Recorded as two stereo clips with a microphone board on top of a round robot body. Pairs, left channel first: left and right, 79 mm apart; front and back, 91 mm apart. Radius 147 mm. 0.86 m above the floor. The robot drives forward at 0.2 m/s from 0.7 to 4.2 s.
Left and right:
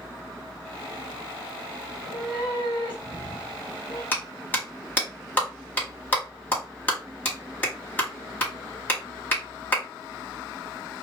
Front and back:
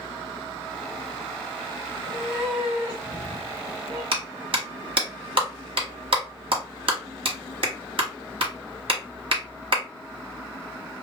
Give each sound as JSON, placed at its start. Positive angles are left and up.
{"t": 1.9, "sound": "a cat meowing", "azimuth_deg": 90, "distance_m": 0.8}
{"t": 4.1, "sound": "a clap", "azimuth_deg": 160, "distance_m": 1.3}